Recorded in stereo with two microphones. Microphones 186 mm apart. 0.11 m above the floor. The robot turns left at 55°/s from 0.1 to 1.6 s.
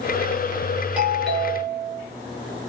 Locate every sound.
1.0 s a doorbell: 165° right, 1.8 m; by 2.0 s 160° left, 1.8 m